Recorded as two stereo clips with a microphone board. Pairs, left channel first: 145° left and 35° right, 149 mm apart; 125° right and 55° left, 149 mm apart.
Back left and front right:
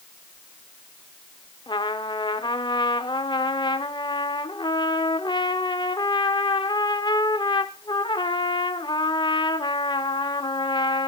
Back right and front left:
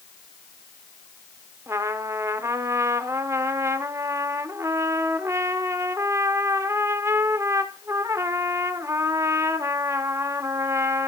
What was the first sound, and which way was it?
A trumpet, 115° left.